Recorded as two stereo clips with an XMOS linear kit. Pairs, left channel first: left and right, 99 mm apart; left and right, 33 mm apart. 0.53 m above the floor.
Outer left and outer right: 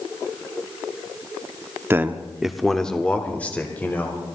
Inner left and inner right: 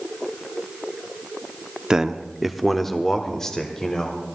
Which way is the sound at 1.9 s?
20° right (ahead or behind).